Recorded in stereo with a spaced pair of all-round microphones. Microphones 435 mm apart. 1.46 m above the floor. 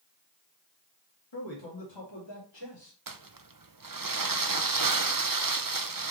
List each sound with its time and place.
1.3 s a man speaking: 80° left, 2 m; by 3.0 s 85° left, 3.5 m
3.1 s crumpling: 50° right (ahead or behind), 0.6 m